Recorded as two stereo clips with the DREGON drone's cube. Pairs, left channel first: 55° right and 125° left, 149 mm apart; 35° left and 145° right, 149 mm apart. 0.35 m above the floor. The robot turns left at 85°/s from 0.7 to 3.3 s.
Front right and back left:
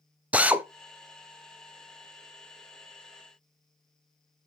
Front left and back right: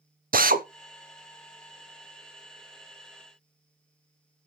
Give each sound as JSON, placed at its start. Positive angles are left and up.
{"t": 0.3, "sound": "a drill", "azimuth_deg": -155, "distance_m": 0.6}